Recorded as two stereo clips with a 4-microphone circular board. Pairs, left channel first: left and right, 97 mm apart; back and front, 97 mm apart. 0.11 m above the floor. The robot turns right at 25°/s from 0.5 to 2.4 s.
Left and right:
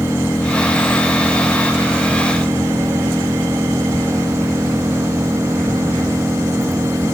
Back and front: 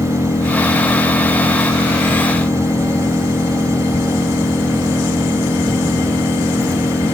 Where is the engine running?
165° left; by 7.1 s 145° right.